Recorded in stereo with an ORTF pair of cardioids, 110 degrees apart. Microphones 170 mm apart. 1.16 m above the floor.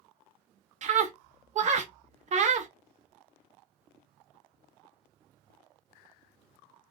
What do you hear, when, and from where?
0.8 s a scream: 45° right, 0.9 m